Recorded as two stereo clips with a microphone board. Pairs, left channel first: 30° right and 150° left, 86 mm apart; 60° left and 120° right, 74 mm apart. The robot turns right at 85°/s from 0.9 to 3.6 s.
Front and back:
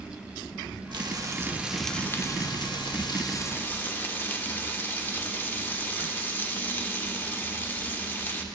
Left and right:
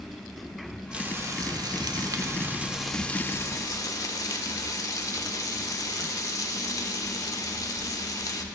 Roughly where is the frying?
Behind.